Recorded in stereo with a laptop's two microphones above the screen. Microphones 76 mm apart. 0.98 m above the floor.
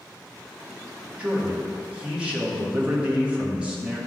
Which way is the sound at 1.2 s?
15° right (ahead or behind).